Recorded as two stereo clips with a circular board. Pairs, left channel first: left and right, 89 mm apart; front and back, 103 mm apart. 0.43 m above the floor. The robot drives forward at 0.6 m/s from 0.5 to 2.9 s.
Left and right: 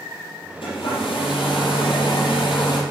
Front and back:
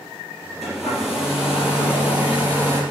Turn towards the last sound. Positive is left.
turn(degrees=110)